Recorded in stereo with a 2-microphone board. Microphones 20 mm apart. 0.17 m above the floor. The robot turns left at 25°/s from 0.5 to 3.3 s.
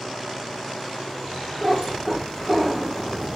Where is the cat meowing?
40° right (ahead or behind), 2.5 m; by 3.4 s centre (ahead or behind), 2.5 m.